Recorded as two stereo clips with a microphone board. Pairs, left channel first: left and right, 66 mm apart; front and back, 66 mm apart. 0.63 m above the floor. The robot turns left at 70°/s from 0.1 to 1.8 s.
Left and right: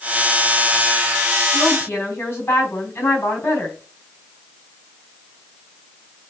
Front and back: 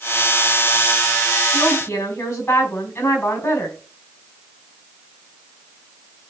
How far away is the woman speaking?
About 4.5 m.